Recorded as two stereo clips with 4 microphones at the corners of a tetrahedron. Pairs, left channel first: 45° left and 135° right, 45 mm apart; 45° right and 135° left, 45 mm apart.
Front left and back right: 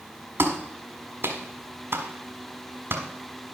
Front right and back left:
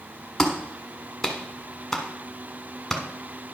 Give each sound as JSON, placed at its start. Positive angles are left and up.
{"t": 0.4, "sound": "a clap", "azimuth_deg": -130, "distance_m": 1.4}